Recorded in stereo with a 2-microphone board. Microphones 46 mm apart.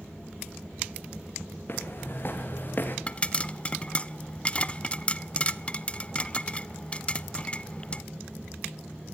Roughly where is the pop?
Left.